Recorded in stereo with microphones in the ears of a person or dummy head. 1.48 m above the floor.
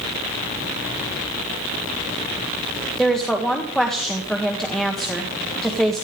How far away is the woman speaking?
About 1.5 m.